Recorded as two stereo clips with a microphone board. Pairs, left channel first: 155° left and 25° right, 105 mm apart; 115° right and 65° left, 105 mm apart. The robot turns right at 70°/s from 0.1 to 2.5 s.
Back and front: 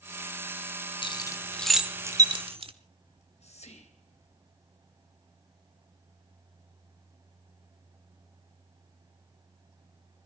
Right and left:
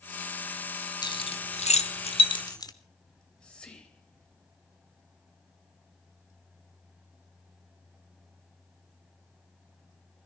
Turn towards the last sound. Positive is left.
turn(degrees=165)